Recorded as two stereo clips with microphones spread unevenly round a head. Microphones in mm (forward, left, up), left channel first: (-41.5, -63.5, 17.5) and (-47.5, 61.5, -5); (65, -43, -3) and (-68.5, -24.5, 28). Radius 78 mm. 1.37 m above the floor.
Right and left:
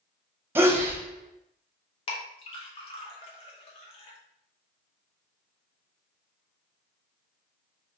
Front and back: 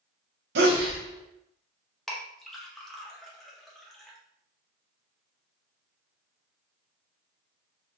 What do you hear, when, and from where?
0.6 s a sneeze: 160° left, 0.9 m
2.1 s a clink: 105° right, 0.7 m